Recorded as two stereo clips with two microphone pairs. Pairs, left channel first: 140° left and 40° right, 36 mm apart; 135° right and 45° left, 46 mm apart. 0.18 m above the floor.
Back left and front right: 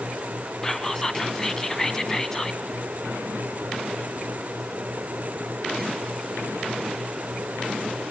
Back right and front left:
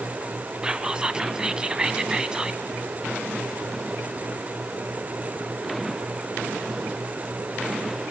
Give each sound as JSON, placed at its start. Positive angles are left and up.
{"t": 0.6, "sound": "whispering", "azimuth_deg": 85, "distance_m": 1.0}